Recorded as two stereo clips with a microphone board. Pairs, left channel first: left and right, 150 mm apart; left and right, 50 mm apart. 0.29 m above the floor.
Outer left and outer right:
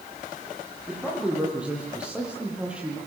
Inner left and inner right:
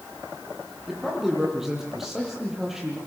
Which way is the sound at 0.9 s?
10° right (ahead or behind).